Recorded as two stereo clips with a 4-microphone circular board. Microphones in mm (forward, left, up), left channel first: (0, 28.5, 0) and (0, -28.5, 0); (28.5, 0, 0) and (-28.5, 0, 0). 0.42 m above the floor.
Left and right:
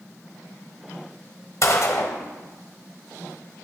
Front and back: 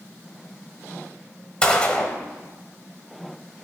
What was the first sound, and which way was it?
A gunshot, 70° left.